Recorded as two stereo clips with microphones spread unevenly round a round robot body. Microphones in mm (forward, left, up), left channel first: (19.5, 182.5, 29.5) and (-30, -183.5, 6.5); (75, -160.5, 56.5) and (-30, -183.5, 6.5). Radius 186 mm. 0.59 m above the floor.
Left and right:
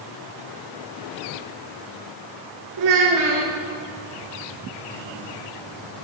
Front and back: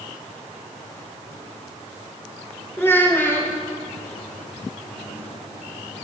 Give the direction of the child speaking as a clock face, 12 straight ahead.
2 o'clock.